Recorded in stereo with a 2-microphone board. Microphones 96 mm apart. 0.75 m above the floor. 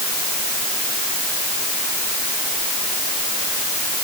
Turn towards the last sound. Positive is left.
No sound to turn to.